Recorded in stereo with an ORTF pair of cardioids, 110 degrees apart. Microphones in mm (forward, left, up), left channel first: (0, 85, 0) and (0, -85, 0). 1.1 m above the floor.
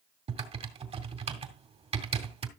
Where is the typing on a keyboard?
35° right, 2.5 m.